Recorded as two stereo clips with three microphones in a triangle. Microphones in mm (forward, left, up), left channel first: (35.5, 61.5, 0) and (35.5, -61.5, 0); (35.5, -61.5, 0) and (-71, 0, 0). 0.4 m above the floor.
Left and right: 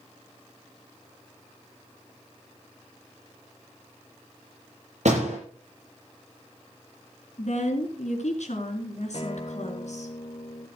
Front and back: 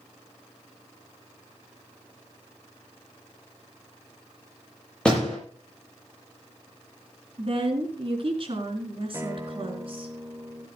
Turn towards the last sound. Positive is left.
turn(degrees=90)